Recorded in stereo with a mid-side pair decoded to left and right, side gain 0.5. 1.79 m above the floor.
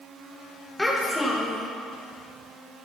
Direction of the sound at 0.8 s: 10° left.